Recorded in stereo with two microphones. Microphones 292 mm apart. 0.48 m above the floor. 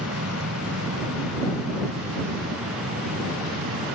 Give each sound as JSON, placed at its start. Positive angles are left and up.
{"t": 0.0, "sound": "an aircraft", "side_deg": -55}